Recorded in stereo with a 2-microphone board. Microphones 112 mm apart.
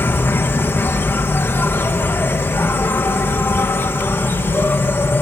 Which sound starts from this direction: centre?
An insect, at 0.0 s.